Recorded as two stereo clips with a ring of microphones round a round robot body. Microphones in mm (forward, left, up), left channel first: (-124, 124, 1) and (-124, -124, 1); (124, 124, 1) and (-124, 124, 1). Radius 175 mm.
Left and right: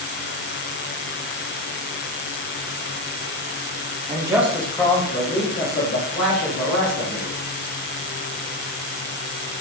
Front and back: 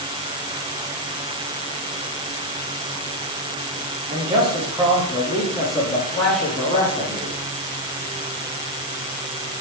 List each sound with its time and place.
4.1 s a man speaking: 140° right, 0.7 m; by 7.3 s 65° left, 1.6 m